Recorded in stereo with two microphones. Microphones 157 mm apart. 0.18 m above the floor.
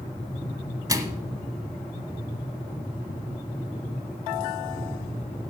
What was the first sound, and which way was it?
A microwave, 25° right (ahead or behind).